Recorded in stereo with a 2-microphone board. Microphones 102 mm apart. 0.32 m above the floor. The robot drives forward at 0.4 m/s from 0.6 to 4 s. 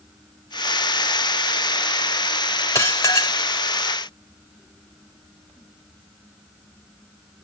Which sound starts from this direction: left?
Dishes clattering, at 2.8 s.